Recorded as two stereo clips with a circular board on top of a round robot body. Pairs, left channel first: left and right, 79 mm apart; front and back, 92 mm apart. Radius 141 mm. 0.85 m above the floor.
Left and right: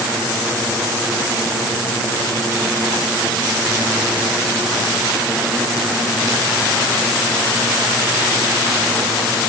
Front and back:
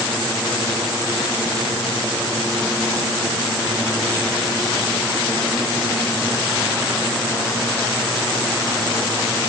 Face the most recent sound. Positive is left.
No sound to turn to.